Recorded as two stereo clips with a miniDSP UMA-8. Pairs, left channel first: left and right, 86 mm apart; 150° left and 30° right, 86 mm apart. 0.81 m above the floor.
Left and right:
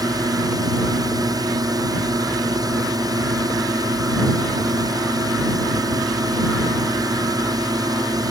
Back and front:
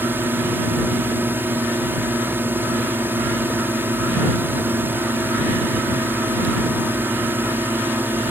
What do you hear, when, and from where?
0.0 s a drone: 90° right